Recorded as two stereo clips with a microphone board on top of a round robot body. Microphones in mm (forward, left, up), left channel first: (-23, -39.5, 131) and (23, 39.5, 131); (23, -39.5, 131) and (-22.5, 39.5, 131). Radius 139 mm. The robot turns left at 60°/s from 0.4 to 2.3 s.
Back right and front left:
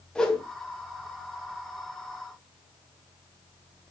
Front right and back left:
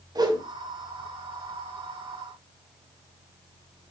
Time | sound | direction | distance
0.1 | a whoosh | 160° left | 2.5 m